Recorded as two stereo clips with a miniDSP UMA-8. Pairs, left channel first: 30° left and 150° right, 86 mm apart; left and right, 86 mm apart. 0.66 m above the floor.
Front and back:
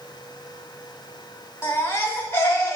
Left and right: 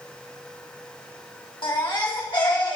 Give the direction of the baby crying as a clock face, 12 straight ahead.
9 o'clock.